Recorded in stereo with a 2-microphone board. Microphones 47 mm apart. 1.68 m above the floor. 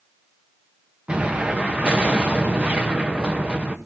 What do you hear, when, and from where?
1.1 s an explosion: 25° right (ahead or behind), 1.1 m